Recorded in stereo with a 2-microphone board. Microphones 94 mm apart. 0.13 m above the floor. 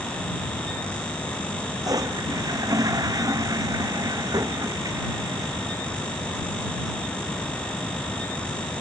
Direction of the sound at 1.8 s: 40° right (ahead or behind).